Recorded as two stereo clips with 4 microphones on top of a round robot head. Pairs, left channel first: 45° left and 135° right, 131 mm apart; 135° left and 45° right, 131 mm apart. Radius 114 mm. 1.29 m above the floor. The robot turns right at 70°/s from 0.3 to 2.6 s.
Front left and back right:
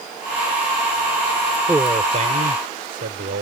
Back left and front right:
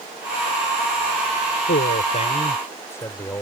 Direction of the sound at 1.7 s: 145° left.